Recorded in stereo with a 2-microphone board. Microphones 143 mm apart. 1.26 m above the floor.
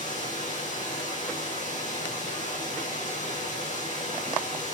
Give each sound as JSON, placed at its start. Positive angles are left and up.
{"t": 0.0, "sound": "running water", "side_deg": 70, "distance_m": 5.5}